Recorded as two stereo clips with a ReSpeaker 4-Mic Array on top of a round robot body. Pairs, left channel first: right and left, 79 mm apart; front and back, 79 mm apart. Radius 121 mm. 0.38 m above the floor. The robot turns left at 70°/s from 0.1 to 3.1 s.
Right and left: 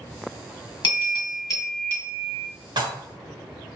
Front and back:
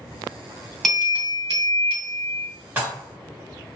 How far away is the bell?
About 2 m.